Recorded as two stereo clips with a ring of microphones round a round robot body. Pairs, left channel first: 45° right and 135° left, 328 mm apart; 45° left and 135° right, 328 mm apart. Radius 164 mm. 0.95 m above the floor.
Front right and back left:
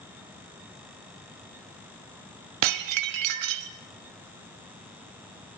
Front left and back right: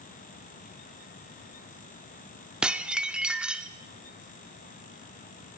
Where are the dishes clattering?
140° left, 1.5 m.